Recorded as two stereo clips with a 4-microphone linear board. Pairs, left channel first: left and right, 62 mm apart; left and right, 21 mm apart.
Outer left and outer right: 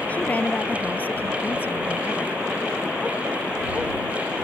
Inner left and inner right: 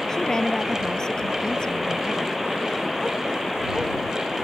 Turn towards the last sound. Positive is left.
turn(degrees=40)  # may be behind; listen again after turning